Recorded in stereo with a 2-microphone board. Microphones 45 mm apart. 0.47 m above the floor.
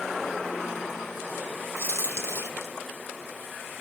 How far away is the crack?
About 2.5 m.